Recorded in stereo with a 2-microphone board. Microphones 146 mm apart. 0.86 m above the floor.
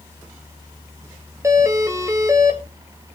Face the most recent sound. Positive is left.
turn(degrees=-20)  # may be behind; listen again after turning